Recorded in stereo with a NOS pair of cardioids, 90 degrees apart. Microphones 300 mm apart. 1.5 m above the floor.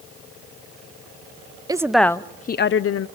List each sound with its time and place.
1.7 s a woman speaking: 15° right, 0.8 m; by 3.1 s 55° left, 0.8 m